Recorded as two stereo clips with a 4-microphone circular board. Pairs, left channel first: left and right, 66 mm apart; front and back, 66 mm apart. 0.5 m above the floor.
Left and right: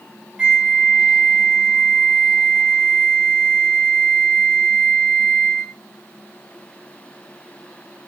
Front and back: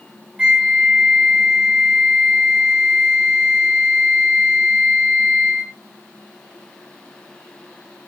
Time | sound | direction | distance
0.4 | a flute | 145° right | 0.7 m